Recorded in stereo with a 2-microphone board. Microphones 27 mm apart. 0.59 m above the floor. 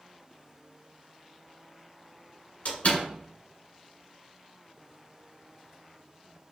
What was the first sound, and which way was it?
A door slam, 70° left (ahead or behind).